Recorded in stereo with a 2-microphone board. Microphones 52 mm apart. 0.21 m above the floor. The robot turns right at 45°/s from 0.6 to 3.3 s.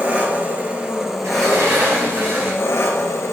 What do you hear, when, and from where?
0.0 s an engine running: 35° right, 1.0 m; by 3.3 s 90° left, 1.0 m
1.2 s a sliding door: 100° right, 3 m; by 2.7 s 35° right, 3 m